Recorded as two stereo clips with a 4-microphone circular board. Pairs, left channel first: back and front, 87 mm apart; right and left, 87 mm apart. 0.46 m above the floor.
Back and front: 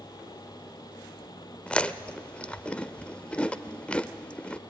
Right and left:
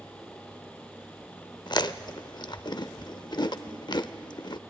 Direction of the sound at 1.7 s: 105° right.